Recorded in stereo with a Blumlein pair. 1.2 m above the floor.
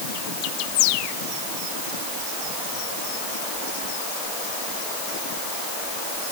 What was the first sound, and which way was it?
Only background noise.